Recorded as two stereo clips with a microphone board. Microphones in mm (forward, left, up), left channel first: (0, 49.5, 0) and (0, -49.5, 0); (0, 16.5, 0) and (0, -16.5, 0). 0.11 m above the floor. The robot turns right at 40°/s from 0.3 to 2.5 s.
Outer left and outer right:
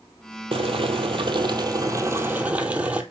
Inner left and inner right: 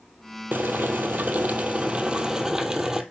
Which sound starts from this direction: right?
Boiling, at 0.5 s.